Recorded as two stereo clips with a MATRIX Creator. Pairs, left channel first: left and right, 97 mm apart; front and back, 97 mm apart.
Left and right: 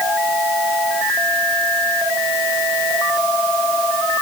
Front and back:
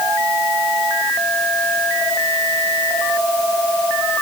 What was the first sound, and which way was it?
Only background noise.